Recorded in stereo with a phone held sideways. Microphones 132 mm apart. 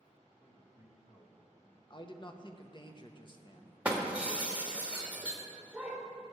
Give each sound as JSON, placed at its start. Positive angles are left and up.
{"t": 0.4, "sound": "a man speaking", "side_deg": 55, "distance_m": 1.8}
{"t": 1.9, "sound": "a man speaking", "side_deg": 35, "distance_m": 0.9}
{"t": 3.9, "sound": "breaking glass", "side_deg": -10, "distance_m": 1.5}